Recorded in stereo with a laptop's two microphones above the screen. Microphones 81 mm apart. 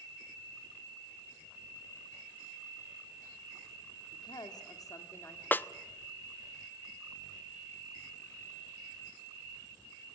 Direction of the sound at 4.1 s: 70° left (ahead or behind).